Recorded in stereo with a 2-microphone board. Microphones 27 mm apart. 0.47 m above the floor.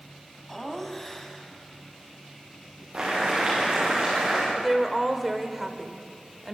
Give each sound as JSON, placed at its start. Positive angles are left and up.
{"t": 0.5, "sound": "laughter", "side_deg": 10, "distance_m": 3.0}
{"t": 2.9, "sound": "boiling", "side_deg": -40, "distance_m": 10.0}
{"t": 4.5, "sound": "a woman speaking", "side_deg": -10, "distance_m": 1.7}